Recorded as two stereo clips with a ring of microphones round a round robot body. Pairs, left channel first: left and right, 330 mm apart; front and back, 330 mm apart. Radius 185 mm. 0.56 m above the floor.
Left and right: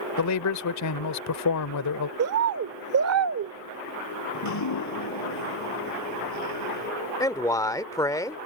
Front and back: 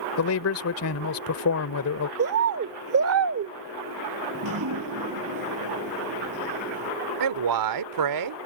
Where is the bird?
135° right.